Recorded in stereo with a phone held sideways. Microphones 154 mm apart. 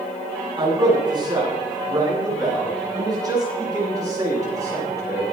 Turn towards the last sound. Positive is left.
turn(degrees=-20)  # may be behind; listen again after turning